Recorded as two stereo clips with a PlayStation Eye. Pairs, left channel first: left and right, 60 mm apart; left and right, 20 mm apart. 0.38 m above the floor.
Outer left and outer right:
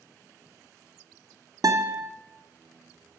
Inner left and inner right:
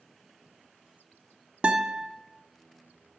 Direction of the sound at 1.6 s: 85° right.